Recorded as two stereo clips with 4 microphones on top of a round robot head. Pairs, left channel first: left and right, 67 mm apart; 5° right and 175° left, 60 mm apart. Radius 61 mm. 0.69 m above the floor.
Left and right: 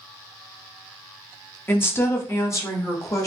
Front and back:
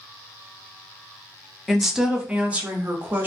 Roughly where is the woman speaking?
Left.